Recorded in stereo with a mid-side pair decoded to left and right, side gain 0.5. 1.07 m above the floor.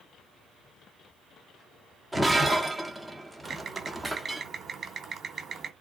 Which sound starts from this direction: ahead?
Breaking glass, at 2.1 s.